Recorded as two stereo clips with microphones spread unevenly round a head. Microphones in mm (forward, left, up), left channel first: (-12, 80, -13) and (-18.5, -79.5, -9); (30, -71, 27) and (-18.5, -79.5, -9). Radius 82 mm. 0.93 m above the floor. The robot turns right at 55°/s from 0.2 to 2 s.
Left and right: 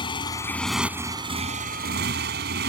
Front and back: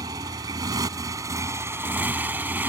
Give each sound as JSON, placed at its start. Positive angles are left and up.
{"t": 0.0, "sound": "a motorcycle", "azimuth_deg": 150}